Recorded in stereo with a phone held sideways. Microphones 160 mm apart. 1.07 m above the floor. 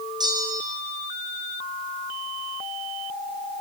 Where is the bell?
25° right (ahead or behind), 4 m.